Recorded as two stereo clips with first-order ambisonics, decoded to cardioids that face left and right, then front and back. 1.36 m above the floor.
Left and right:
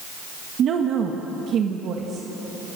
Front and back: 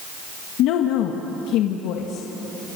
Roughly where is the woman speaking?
Ahead right.